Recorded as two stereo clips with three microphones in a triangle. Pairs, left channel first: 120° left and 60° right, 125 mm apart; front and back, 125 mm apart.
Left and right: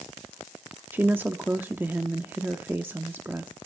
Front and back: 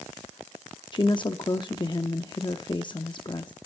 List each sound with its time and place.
0.9 s a woman speaking: 5° left, 0.7 m